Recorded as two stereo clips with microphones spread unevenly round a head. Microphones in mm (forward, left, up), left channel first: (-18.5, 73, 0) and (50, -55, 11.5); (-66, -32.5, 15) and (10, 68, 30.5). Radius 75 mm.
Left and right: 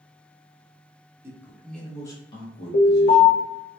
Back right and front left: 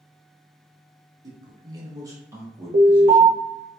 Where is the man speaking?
5° left, 0.6 m; by 3.4 s 135° left, 1.0 m.